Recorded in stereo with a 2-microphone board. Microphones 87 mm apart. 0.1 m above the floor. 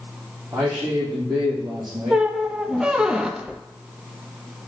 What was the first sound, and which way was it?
A man speaking, 45° right (ahead or behind).